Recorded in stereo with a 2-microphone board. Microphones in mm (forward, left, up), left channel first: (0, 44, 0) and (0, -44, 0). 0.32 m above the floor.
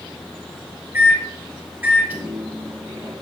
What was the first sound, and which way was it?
A microwave, 25° right (ahead or behind).